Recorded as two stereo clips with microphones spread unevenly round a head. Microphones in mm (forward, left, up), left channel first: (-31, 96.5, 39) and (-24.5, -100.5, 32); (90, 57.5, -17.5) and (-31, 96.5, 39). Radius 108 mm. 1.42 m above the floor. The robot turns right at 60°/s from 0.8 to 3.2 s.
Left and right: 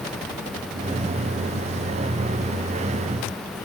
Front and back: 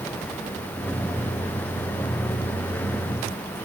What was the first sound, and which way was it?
Only background noise.